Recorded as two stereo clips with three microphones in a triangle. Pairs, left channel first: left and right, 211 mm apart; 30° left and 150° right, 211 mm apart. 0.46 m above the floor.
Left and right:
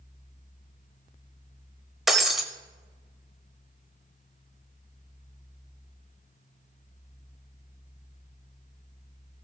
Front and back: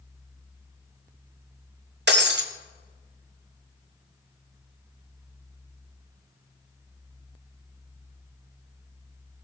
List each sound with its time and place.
2.1 s breaking glass: straight behind, 1.1 m